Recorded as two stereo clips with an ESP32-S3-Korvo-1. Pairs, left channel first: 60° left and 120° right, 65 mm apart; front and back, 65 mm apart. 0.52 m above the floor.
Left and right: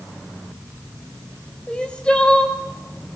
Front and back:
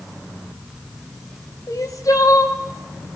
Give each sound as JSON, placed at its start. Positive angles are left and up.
{"t": 1.7, "sound": "crying", "azimuth_deg": -15, "distance_m": 2.0}